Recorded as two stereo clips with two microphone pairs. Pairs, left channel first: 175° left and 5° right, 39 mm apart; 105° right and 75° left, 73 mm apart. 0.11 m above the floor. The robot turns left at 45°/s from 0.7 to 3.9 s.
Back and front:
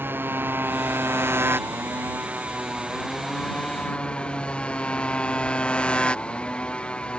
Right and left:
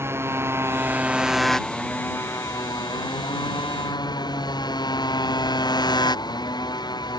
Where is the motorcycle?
20° left; by 7.2 s 125° right.